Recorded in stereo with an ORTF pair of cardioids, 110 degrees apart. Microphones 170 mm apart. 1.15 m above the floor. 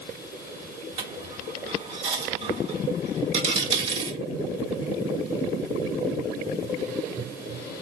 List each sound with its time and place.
1.0 s a dropped coin: 40° right, 1.5 m